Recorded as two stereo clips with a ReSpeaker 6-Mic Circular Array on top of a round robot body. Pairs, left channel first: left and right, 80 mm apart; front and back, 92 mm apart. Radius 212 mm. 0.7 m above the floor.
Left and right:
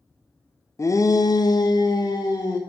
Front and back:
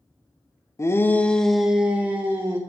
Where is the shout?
50° left, 0.9 m; by 2.6 s 120° left, 1.3 m.